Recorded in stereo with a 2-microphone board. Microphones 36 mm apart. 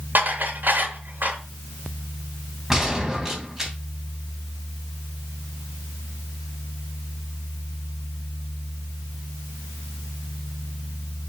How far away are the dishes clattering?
About 2.5 m.